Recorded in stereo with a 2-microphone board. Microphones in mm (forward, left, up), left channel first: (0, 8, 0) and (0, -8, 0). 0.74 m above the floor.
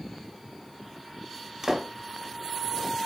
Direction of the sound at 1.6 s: 30° right (ahead or behind).